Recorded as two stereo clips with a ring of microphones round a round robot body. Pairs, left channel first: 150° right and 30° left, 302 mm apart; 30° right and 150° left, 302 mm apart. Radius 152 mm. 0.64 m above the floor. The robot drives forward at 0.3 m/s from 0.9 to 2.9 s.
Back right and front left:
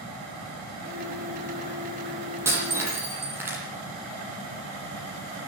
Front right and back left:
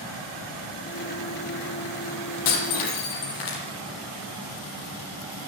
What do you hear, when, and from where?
2.5 s breaking glass: 50° right, 9 m; by 3.6 s 55° right, 9 m